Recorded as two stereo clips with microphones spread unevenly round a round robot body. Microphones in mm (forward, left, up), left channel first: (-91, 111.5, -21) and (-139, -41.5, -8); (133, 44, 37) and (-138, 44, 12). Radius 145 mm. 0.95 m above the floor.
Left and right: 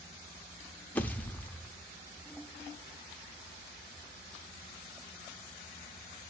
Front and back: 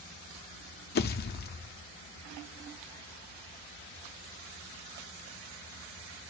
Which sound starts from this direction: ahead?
A pop, at 0.9 s.